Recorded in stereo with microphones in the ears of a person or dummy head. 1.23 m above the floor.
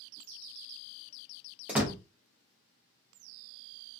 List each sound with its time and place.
1.7 s a door slam: 10° right (ahead or behind), 0.6 m